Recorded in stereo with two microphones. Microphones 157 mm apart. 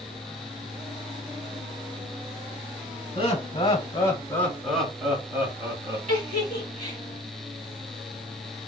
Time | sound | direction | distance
3.1 | laughter | 35° left (ahead or behind) | 1.4 m
6.1 | a giggle | 50° right (ahead or behind) | 1.7 m